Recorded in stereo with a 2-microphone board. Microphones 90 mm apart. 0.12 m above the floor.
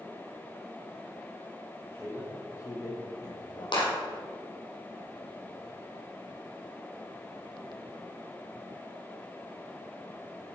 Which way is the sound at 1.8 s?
25° left (ahead or behind).